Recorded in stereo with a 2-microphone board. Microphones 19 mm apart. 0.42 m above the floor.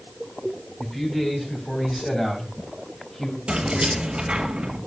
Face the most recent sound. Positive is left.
turn(degrees=-65)  # may be behind; listen again after turning